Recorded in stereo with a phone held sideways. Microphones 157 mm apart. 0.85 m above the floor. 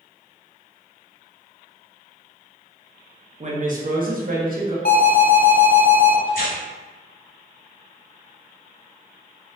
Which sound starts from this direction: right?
A woman speaking, at 3.4 s.